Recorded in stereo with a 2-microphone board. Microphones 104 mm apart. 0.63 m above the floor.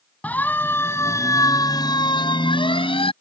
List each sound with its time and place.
0.2 s a siren: 15° left (ahead or behind); by 3.1 s 65° left (ahead or behind)